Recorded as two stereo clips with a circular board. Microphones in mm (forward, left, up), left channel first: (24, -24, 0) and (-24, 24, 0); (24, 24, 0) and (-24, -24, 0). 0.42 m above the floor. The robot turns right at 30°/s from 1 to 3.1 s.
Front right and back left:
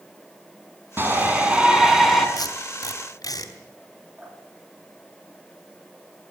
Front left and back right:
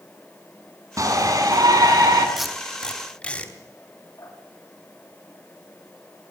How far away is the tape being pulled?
About 3 m.